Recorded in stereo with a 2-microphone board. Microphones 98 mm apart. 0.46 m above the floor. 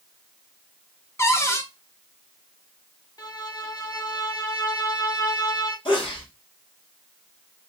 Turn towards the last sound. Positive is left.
turn(degrees=55)  # may be behind; listen again after turning